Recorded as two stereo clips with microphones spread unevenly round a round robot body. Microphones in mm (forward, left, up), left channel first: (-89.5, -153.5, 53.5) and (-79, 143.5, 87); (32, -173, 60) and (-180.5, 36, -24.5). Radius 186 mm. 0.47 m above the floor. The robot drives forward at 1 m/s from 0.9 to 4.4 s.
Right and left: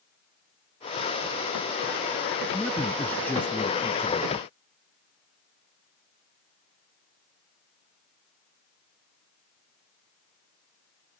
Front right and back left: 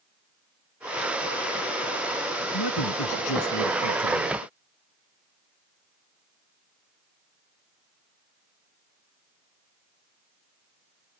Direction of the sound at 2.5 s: 5° right.